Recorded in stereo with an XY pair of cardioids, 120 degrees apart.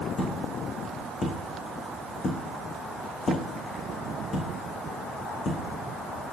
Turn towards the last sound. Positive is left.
turn(degrees=40)